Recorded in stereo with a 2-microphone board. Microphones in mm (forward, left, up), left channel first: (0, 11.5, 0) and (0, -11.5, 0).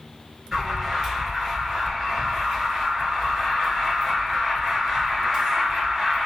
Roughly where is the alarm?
Right.